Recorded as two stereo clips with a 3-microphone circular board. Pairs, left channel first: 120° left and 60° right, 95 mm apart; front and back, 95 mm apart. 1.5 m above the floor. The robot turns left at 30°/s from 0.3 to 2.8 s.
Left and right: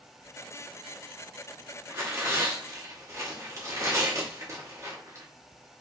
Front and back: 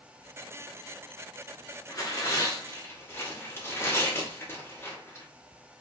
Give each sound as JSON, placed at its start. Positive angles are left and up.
{"t": 1.9, "sound": "tearing paper", "azimuth_deg": -15, "distance_m": 1.0}